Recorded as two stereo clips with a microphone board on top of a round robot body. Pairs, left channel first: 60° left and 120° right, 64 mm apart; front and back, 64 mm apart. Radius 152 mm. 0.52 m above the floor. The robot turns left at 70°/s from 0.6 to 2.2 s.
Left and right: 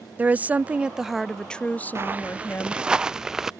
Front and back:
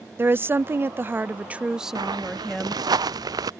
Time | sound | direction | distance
0.2 | a woman speaking | 165° right | ?
1.9 | footsteps | 170° right | ?